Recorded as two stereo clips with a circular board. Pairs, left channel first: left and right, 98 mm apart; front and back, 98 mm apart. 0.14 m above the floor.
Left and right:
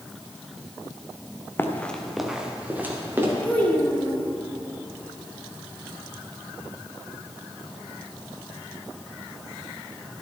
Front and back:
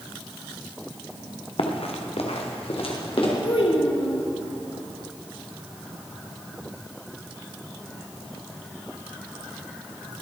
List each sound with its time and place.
1.6 s running footsteps: 25° left, 1.7 m; by 3.3 s 25° right, 3.5 m
3.4 s a child speaking: 20° left, 2.5 m